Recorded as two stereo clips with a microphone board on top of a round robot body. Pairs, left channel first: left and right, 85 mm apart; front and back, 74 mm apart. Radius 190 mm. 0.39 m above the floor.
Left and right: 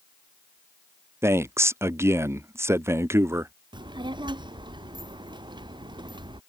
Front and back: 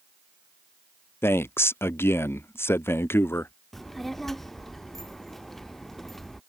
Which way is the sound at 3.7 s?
85° right.